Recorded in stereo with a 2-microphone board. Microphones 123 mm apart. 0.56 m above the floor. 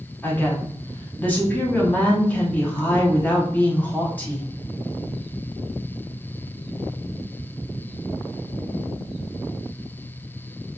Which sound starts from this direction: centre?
A woman speaking, at 0.2 s.